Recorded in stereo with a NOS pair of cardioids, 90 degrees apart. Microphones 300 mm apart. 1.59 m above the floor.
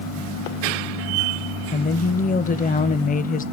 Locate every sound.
1.7 s a woman speaking: 30° left, 0.6 m